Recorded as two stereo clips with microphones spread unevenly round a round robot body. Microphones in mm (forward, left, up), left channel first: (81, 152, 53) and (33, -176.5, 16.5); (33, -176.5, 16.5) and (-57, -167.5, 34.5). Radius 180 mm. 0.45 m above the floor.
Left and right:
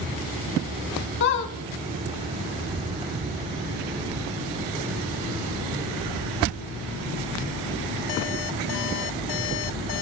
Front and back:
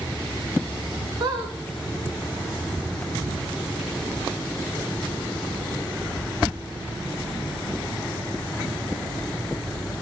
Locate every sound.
1.2 s a squeak: 130° left, 0.5 m